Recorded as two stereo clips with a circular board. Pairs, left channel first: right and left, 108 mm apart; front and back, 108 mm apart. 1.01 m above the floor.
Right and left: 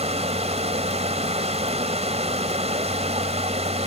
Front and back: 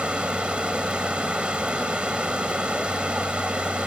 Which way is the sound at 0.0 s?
100° left.